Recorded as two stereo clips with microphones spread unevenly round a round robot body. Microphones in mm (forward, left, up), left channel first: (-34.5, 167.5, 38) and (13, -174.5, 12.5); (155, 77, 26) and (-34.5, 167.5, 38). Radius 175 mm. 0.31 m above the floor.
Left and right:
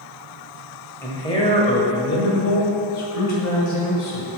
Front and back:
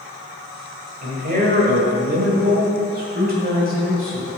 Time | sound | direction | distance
1.0 | a man speaking | straight behind | 1.8 m